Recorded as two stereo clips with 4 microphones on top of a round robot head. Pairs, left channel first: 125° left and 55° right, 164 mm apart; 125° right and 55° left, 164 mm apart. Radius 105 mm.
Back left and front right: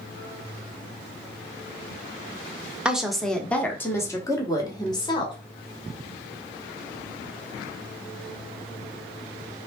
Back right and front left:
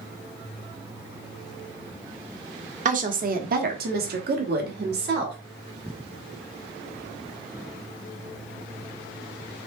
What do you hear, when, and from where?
2.9 s a woman speaking: 30° left, 1.1 m; by 5.3 s 65° left, 2 m